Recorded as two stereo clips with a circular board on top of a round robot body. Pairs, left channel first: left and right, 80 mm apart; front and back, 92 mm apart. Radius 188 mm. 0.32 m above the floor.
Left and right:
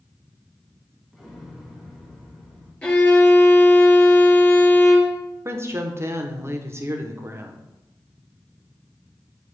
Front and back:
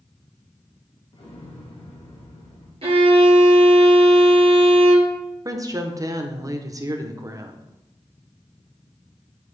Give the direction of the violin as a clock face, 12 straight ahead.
6 o'clock.